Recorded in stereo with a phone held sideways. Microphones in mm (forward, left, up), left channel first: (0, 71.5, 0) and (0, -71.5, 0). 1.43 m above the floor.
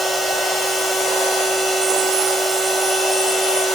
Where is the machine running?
Centre (ahead or behind), 3.5 m.